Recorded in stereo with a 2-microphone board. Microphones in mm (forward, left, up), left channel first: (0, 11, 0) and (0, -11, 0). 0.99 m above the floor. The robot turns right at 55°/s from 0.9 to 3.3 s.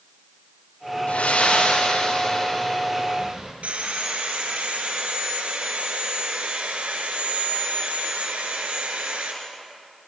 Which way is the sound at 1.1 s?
80° left.